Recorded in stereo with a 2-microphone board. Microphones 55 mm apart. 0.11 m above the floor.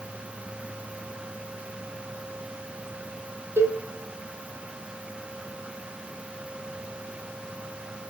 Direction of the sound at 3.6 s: 50° right (ahead or behind).